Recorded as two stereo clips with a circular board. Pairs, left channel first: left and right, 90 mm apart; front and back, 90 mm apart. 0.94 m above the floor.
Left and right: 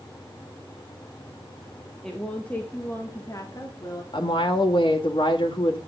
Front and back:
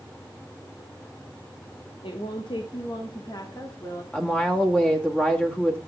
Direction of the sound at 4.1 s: 75° left.